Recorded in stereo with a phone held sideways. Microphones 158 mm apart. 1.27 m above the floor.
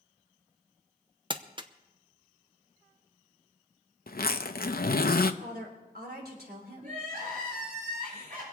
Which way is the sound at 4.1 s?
70° left (ahead or behind).